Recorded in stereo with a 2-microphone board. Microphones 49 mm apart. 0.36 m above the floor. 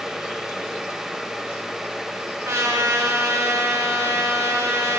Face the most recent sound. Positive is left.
turn(degrees=-70)  # may be behind; listen again after turning